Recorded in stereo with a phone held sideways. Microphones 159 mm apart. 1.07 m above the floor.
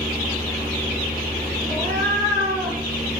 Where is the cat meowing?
25° left (ahead or behind), 9.5 m.